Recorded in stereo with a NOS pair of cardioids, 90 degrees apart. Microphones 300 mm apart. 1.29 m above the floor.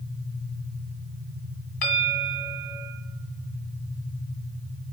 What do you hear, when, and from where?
1.8 s a bell: 65° left, 1.8 m